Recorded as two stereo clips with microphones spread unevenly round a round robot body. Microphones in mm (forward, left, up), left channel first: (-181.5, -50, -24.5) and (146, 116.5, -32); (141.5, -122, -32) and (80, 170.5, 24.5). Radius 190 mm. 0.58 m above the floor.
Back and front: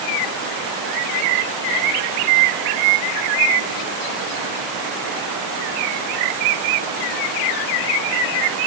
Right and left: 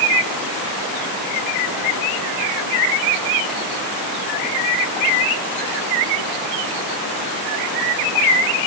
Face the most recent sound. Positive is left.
No sound to turn to.